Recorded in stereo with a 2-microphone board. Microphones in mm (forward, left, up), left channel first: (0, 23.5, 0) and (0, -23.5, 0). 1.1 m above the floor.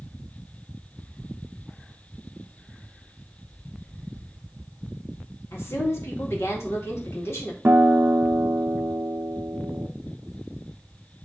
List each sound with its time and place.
5.5 s a woman speaking: 70° left (ahead or behind), 2.5 m
7.7 s a guitar: 50° right (ahead or behind), 0.7 m